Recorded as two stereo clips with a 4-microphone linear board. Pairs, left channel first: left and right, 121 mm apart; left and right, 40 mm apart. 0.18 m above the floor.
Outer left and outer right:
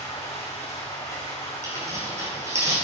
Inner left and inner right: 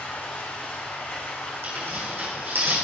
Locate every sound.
0.0 s running water: 65° left (ahead or behind), 3 m
1.6 s tearing paper: 65° right (ahead or behind), 3.5 m